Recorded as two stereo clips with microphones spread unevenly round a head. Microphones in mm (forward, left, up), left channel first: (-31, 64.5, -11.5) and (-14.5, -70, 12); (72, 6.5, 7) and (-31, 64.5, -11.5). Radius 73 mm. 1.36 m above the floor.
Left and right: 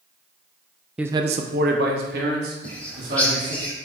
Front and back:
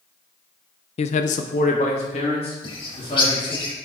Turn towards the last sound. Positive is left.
turn(degrees=10)